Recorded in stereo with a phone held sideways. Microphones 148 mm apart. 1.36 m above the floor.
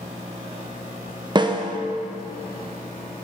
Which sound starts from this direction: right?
A snare drum, at 1.4 s.